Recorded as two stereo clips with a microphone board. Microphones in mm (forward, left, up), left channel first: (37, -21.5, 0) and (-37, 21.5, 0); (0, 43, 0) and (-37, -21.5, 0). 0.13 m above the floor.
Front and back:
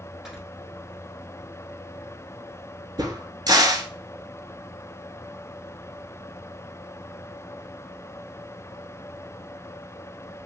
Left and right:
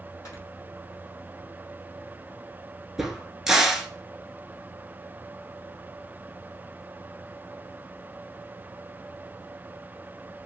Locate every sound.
0.2 s snoring: 70° left, 1.2 m
3.0 s a crack: 160° left, 0.5 m